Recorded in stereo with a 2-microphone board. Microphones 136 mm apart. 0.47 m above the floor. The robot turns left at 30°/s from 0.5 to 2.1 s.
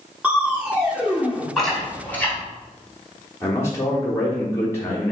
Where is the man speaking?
20° left (ahead or behind), 0.9 m.